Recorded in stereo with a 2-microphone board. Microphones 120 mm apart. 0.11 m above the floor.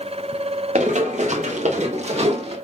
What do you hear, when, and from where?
0.8 s running footsteps: 80° right, 2.5 m; by 2.5 s 55° right (ahead or behind), 3.5 m